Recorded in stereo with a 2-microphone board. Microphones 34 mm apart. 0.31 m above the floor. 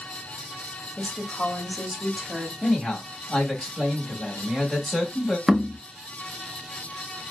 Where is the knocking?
5° right (ahead or behind), 0.6 m.